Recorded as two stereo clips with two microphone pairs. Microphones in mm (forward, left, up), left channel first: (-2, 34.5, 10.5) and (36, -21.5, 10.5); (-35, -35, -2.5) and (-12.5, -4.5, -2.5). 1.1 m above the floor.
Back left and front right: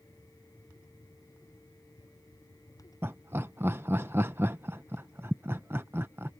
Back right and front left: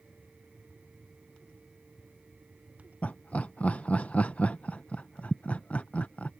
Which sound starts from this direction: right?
Laughter, at 3.0 s.